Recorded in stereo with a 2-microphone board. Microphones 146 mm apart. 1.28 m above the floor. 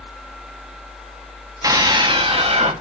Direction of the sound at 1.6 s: 25° right (ahead or behind).